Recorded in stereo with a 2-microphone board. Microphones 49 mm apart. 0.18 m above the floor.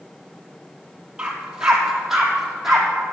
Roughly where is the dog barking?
Centre.